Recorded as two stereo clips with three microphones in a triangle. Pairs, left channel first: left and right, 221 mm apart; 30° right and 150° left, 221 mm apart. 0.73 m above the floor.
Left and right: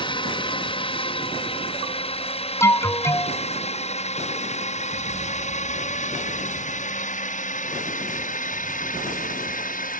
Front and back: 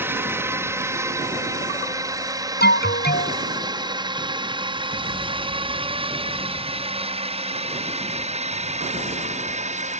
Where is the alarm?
10° left.